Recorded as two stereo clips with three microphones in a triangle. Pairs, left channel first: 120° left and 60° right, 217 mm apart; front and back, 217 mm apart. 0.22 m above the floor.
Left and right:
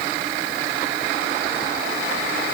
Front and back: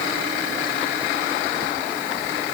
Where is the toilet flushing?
No toilet flushing in this recording.